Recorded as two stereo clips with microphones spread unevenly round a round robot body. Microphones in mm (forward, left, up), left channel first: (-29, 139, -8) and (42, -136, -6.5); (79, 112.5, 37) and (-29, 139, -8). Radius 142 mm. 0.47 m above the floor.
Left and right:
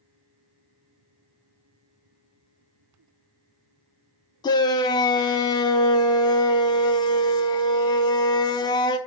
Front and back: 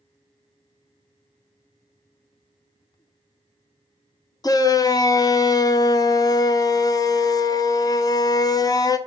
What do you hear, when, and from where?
4.4 s a shout: 55° left, 0.7 m